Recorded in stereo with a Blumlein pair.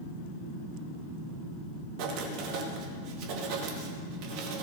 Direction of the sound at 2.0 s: 45° right.